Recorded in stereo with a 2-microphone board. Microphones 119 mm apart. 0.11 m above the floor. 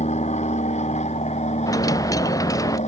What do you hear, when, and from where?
0.0 s an aircraft: 70° left (ahead or behind); by 2.9 s 75° left (ahead or behind)
1.7 s a dropped coin: 30° left (ahead or behind)